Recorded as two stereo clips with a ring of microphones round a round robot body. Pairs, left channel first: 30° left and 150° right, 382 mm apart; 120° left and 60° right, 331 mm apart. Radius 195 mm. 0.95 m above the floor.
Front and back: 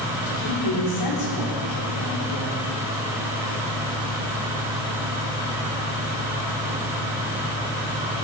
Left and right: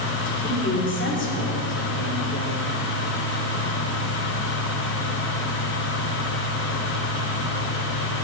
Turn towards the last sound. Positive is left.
turn(degrees=65)